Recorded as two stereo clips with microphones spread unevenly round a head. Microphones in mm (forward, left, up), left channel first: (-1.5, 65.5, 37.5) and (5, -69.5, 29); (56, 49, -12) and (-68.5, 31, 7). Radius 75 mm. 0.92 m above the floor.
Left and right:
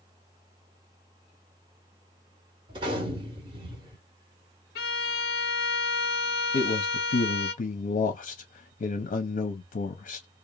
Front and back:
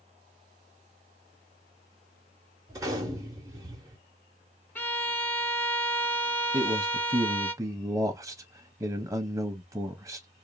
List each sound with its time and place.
2.7 s a gunshot: 135° right, 0.7 m
4.8 s a violin: 85° left, 0.6 m
6.5 s a man speaking: 120° left, 0.5 m